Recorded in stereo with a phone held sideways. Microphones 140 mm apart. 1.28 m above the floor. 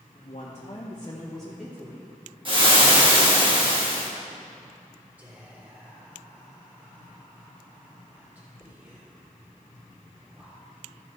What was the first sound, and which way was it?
A woman speaking, 60° left (ahead or behind).